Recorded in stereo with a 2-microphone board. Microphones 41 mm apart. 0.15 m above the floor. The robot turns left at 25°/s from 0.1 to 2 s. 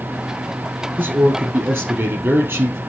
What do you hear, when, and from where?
1.0 s a man speaking: 50° right (ahead or behind), 3.5 m; by 2.8 s 70° right (ahead or behind), 3.5 m